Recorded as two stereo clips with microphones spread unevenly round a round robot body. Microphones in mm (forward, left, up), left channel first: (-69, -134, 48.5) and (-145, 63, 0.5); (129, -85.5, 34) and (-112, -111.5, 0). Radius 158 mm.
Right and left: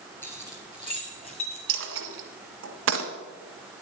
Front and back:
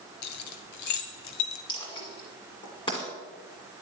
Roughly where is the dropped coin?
Left.